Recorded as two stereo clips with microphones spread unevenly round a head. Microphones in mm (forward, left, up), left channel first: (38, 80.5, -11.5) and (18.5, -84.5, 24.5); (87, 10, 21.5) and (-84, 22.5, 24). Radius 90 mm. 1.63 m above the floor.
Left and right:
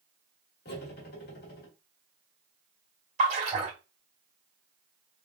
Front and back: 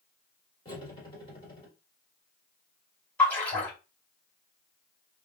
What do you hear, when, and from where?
0.7 s cutlery clinking: 55° left, 1.5 m
3.2 s a splash: 85° right, 2.0 m